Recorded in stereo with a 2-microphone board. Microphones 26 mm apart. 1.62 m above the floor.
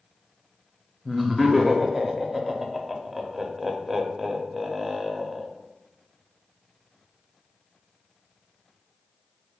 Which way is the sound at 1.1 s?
5° right (ahead or behind).